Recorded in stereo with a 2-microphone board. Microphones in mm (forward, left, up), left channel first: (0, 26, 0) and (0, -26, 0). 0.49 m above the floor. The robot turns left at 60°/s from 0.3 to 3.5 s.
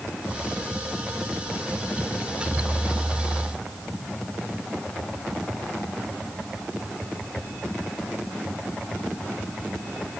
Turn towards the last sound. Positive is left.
No sound to turn to.